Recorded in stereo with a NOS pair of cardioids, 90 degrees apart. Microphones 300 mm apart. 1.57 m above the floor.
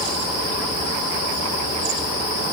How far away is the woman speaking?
I don't hear a woman speaking.